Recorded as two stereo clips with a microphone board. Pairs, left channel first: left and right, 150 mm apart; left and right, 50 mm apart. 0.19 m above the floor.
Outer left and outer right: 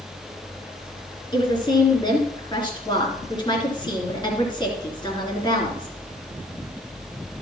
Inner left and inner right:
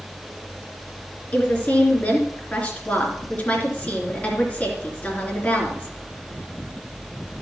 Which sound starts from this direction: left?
A woman speaking, at 1.3 s.